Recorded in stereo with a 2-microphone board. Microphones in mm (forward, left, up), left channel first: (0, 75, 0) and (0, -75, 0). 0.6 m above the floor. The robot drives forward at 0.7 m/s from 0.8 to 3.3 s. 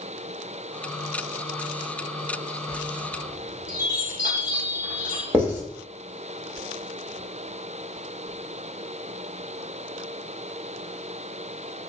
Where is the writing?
10° right (ahead or behind), 1.5 m.